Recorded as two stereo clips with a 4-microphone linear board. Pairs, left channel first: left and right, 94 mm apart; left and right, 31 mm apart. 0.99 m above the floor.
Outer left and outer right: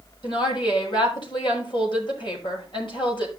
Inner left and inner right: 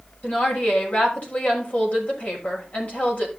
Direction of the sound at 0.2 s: 60° left (ahead or behind).